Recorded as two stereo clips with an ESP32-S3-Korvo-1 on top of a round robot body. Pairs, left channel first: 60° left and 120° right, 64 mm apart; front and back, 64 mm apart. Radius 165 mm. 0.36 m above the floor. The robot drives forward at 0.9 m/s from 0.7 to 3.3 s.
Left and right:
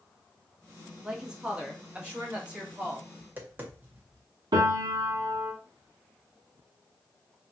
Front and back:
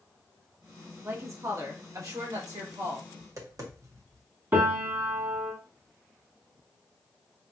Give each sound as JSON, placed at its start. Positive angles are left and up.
{"t": 1.0, "sound": "a woman speaking", "azimuth_deg": 160, "distance_m": 1.5}
{"t": 3.2, "sound": "tapping", "azimuth_deg": -175, "distance_m": 1.3}
{"t": 4.5, "sound": "a piano", "azimuth_deg": -115, "distance_m": 1.1}